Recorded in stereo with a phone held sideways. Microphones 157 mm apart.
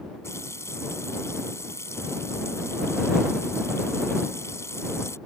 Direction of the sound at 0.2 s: 15° left (ahead or behind).